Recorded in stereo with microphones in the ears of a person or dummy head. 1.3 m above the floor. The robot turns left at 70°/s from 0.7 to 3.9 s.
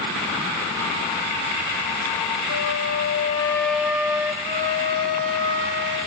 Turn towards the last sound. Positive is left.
turn(degrees=-65)  # may be behind; listen again after turning